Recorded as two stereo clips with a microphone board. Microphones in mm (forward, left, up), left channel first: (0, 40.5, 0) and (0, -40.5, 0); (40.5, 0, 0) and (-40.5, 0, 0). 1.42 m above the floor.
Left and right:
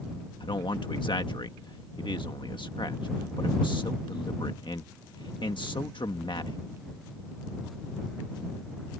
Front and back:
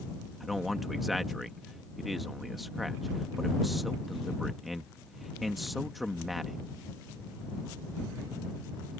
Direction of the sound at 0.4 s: 90° left.